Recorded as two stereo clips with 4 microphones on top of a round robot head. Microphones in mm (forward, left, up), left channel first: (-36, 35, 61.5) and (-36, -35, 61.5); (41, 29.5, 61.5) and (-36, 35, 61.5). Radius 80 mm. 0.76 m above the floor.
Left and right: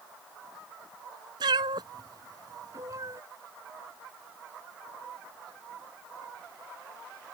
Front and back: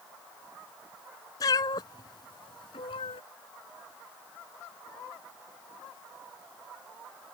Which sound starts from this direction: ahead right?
A cat meowing, at 1.4 s.